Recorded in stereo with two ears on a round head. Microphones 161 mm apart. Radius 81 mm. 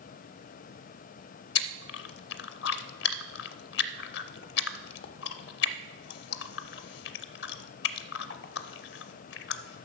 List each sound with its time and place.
1.6 s chewing: 60° left (ahead or behind), 0.5 m